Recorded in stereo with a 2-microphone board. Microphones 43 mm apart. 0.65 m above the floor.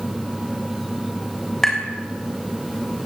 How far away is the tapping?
About 6 m.